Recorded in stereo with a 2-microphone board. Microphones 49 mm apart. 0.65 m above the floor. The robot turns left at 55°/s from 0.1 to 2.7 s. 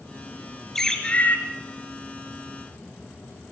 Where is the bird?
175° left, 2.5 m; by 1.4 s 140° left, 2.5 m.